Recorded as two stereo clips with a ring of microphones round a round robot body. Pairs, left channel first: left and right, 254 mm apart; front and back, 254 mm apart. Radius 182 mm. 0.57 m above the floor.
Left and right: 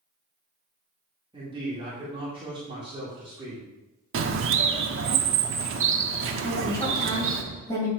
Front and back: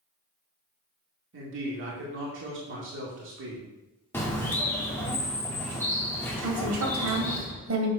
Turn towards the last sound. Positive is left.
turn(degrees=170)